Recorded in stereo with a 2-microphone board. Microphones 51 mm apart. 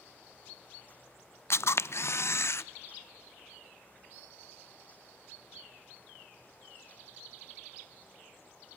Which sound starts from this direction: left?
A camera shutter, at 1.5 s.